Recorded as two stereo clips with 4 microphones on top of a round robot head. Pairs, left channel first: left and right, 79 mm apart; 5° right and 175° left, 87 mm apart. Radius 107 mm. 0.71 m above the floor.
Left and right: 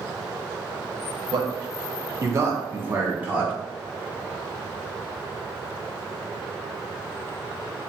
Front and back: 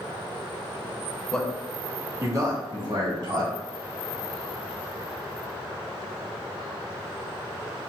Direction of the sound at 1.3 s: 85° right.